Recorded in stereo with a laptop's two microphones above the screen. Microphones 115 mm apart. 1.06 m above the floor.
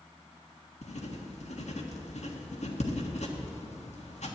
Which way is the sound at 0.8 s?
80° left.